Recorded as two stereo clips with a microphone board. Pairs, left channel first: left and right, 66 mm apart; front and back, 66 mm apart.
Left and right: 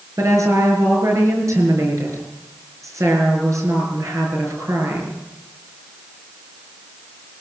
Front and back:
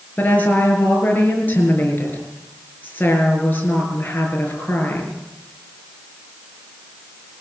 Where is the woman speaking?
60° right, 6 m.